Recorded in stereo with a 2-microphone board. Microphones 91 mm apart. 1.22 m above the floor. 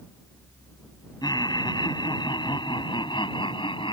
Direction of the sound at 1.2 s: 50° left (ahead or behind).